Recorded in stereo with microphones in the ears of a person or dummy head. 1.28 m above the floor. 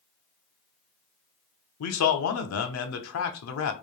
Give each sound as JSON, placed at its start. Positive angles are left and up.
{"t": 1.8, "sound": "a man speaking", "side_deg": 80, "distance_m": 0.6}